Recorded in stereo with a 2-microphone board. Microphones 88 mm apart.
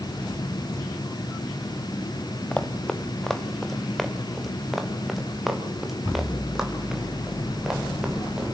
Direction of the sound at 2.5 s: 10° left (ahead or behind).